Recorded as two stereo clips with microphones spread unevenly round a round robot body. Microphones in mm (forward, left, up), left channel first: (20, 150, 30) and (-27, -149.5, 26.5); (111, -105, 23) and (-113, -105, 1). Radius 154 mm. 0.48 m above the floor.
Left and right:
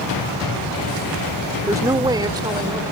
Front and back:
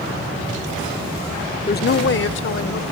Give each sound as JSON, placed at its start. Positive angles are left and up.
{"t": 1.7, "sound": "a woman speaking", "azimuth_deg": -25}